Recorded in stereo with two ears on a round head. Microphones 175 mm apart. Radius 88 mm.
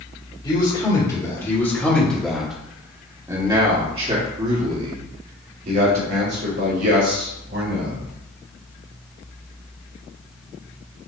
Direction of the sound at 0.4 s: 25° left (ahead or behind).